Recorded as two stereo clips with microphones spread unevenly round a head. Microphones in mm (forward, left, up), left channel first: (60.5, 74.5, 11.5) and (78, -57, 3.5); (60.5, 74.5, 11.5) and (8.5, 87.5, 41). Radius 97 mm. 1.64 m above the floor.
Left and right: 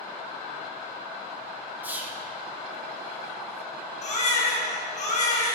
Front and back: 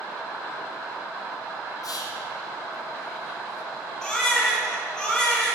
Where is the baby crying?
75° left, 4.5 m.